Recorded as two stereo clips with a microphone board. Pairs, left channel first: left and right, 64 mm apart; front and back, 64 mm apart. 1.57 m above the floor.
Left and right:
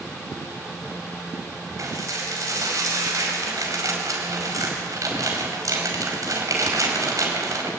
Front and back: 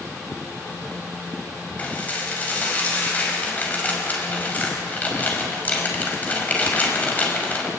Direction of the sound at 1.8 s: 65° right.